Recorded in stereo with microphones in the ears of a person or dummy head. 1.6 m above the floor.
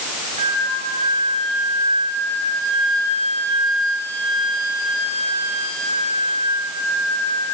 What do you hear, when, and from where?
0.4 s a flute: 45° right (ahead or behind), 6 m